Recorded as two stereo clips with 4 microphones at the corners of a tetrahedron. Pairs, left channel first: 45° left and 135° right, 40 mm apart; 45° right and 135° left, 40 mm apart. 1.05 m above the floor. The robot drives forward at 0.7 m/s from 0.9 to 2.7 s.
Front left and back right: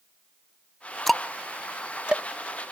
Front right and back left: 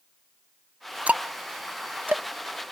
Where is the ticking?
130° left; by 2.2 s 165° left.